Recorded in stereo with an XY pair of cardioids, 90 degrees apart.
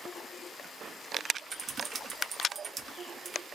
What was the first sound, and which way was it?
Typing on a keyboard, 50° right.